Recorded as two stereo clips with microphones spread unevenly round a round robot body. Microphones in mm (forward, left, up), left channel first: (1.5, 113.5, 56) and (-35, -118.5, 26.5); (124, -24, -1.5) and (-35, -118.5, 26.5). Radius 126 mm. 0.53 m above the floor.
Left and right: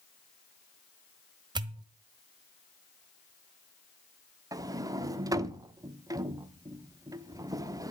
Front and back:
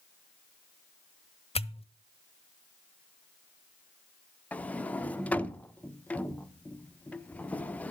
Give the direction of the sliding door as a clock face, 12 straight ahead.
1 o'clock.